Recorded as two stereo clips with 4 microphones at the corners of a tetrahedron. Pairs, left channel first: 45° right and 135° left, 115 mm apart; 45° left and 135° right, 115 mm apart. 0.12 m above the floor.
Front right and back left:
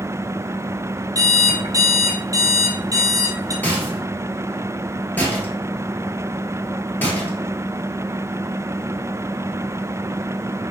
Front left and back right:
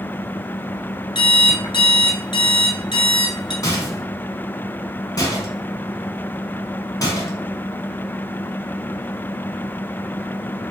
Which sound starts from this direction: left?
An alarm clock, at 1.1 s.